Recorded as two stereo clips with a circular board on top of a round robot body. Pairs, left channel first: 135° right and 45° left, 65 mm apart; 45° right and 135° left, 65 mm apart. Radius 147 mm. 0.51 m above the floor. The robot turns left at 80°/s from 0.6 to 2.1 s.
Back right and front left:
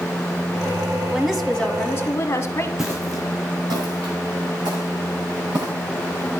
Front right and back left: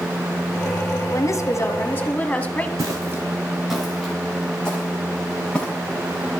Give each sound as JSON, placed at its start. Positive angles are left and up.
{"t": 1.1, "sound": "a woman speaking", "azimuth_deg": -20, "distance_m": 1.6}
{"t": 2.8, "sound": "footsteps", "azimuth_deg": 125, "distance_m": 0.6}